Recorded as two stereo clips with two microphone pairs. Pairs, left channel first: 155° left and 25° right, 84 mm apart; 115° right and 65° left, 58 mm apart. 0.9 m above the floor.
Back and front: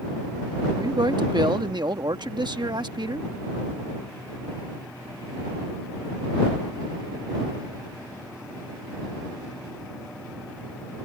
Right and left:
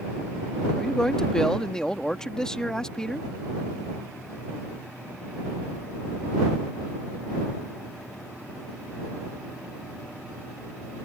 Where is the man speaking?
40° right.